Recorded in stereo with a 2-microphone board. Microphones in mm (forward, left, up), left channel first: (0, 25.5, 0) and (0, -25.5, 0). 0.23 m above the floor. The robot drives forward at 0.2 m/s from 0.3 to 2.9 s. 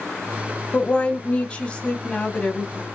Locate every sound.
0.7 s a woman speaking: 25° left (ahead or behind), 1.2 m; by 2.9 s 20° left (ahead or behind), 1.3 m